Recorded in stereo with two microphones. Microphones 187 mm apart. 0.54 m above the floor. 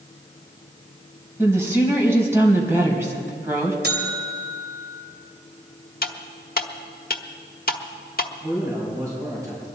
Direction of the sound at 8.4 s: 20° right (ahead or behind).